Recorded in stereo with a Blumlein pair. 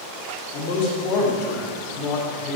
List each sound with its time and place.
0.5 s a man speaking: 40° left, 3 m